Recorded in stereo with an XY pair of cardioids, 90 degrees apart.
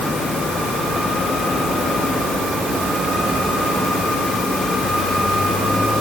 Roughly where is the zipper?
No zipper in this recording.